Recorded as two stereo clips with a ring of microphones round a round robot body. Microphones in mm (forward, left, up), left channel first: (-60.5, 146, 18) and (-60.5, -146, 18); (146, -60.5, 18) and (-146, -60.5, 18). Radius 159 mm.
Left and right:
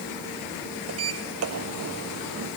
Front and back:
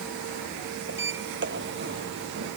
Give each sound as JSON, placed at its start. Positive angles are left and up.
{"t": 0.9, "sound": "a sliding door", "azimuth_deg": -130}